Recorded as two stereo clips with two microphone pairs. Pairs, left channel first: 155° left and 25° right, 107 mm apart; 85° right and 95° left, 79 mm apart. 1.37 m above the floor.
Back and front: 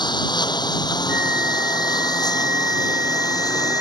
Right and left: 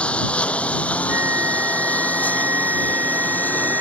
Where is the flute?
45° left.